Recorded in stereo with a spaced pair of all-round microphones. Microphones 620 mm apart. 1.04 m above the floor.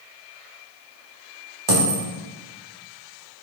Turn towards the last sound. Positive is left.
turn(degrees=-45)  # may be behind; listen again after turning